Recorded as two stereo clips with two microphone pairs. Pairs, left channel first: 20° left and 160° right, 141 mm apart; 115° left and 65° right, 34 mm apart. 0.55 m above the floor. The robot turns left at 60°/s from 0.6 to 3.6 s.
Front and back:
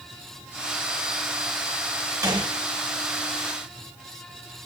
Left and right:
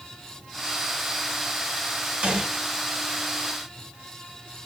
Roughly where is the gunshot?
Right.